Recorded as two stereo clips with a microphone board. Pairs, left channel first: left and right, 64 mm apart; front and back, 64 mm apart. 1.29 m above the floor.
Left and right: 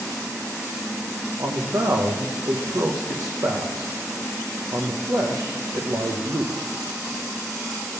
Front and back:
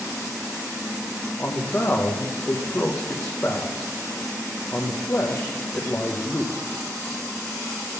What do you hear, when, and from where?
1.4 s a man speaking: 65° right, 0.8 m